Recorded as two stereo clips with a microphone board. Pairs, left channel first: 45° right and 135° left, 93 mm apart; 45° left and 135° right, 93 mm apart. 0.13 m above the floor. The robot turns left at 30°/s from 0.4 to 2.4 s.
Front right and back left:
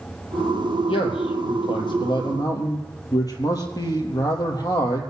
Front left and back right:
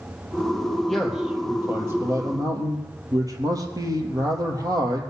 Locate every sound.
0.9 s a man speaking: 45° right, 3.5 m; by 5.0 s 90° right, 3.5 m